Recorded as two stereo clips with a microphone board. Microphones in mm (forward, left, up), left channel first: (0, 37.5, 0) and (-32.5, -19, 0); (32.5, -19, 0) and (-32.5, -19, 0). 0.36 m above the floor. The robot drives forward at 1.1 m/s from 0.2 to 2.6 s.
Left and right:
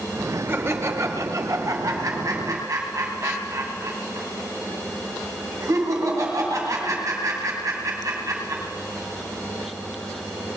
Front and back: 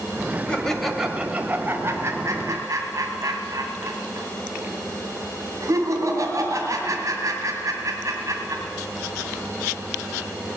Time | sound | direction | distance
0.5 | laughter | 70° right | 1.6 m